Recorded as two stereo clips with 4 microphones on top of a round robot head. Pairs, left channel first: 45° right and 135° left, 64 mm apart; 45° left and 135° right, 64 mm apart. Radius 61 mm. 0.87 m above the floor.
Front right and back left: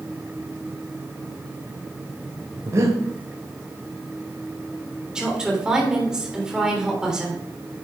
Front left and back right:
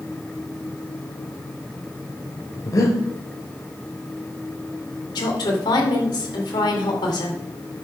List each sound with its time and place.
2.6 s breathing: 85° left, 2 m
5.2 s a woman speaking: 55° left, 3.5 m